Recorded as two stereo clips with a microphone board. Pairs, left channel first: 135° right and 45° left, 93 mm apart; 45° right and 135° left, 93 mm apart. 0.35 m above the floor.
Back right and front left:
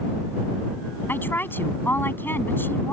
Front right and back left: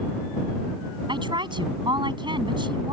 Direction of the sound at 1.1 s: 160° left.